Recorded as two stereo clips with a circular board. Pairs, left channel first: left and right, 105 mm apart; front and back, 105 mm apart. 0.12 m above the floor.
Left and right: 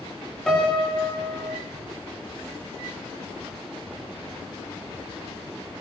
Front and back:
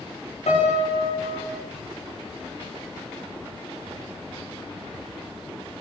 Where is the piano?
5° left, 8.5 m.